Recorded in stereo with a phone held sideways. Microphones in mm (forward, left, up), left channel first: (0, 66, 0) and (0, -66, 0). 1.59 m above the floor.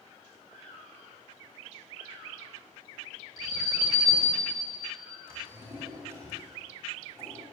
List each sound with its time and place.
3.4 s an alarm: 30° right (ahead or behind), 4.5 m
5.3 s a drawer: 20° right (ahead or behind), 5 m